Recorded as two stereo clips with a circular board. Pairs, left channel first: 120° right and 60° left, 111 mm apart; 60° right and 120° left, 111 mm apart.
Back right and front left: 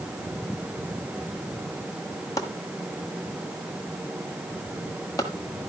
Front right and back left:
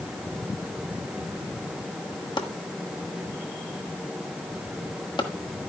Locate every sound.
2.4 s chopping: 75° right, 1.4 m